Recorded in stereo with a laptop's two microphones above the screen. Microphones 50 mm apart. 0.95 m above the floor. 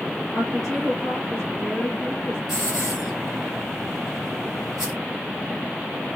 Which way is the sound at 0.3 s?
Centre (ahead or behind).